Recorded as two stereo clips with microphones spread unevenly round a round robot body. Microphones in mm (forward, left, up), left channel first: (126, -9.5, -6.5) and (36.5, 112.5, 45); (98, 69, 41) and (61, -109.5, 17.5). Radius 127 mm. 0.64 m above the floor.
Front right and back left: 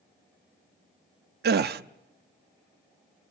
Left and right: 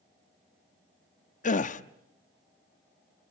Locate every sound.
1.4 s a gasp: 125° left, 0.7 m